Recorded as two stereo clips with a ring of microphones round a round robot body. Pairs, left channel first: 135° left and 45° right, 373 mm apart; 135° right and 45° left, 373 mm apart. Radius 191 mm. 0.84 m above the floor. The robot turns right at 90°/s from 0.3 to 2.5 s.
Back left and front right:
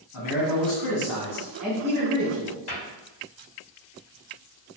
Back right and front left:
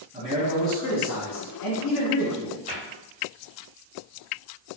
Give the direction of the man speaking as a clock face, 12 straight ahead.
8 o'clock.